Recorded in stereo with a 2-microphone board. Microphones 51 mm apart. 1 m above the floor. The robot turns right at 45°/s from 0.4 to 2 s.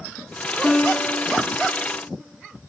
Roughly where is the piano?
Centre.